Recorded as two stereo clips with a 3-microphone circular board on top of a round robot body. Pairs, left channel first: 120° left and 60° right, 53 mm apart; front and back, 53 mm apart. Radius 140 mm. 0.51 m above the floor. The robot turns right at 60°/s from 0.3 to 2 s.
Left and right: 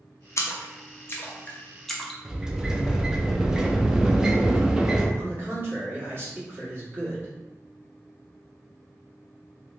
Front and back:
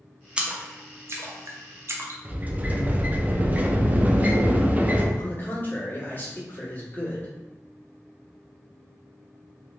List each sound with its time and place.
0.4 s a splash: 115° left, 0.7 m; by 2.1 s 150° right, 0.7 m
2.2 s a sliding door: 130° right, 0.6 m
5.2 s a man speaking: 35° right, 1.7 m